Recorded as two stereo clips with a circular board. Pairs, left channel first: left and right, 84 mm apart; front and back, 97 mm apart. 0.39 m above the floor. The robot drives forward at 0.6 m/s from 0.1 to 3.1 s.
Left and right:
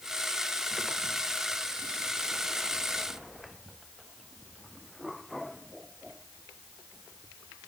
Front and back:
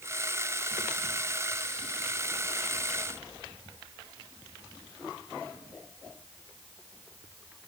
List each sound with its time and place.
Only background noise.